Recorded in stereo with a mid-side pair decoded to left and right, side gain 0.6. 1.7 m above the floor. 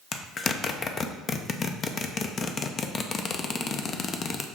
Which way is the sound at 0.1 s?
35° left.